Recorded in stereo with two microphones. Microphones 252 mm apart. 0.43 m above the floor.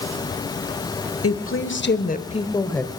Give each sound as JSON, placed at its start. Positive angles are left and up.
{"t": 1.2, "sound": "a woman speaking", "side_deg": 60, "distance_m": 1.6}